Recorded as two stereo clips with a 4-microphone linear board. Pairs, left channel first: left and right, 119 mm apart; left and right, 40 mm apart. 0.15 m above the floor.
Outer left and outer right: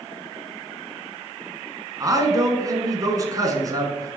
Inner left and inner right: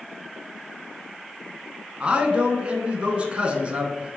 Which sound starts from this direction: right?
A man speaking, at 2.0 s.